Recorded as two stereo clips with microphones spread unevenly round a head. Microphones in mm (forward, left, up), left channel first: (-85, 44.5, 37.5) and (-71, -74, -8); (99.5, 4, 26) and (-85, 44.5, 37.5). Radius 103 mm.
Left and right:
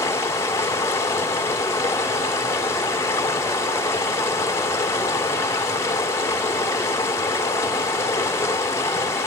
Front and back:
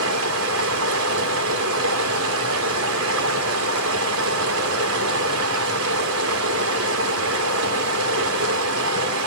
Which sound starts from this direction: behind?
Running water, at 0.0 s.